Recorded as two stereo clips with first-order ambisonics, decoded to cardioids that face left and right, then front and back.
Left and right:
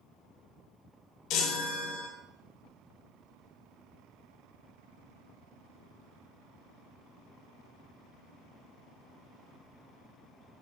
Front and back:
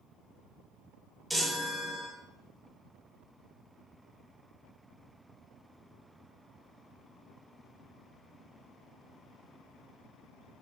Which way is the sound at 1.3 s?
90° left.